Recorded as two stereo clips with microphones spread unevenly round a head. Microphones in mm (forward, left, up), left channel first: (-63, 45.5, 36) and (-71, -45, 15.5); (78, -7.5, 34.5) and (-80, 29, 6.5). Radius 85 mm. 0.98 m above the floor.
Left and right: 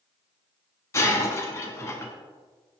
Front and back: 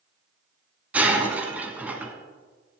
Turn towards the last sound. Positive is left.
turn(degrees=75)